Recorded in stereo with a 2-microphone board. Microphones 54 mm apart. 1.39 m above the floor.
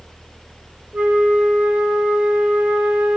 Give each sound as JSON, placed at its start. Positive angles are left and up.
{"t": 0.9, "sound": "a flute", "side_deg": -30, "distance_m": 2.5}